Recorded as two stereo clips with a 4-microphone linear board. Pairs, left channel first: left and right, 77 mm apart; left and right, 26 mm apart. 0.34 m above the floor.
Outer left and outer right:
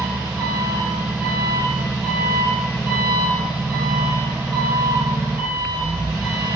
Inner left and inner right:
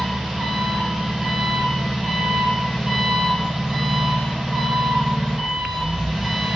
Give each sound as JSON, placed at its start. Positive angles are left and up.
{"t": 0.0, "sound": "an engine running", "side_deg": -30, "distance_m": 5.0}